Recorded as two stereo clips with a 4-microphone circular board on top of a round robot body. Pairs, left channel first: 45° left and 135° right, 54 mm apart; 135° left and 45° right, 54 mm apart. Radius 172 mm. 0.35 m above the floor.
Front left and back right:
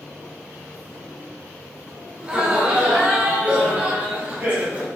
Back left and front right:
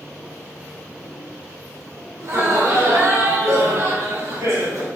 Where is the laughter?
65° right, 2 m; by 4.9 s 75° right, 3.5 m.